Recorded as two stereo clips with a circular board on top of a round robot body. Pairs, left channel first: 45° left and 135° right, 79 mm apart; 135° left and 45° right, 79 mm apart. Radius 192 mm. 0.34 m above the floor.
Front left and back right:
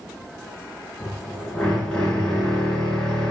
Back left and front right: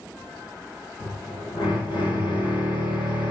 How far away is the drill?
About 3 m.